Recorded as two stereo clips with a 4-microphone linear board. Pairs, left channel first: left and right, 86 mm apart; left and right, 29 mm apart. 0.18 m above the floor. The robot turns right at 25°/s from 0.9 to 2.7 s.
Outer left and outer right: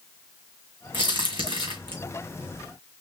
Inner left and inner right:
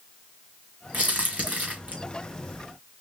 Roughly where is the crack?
Right.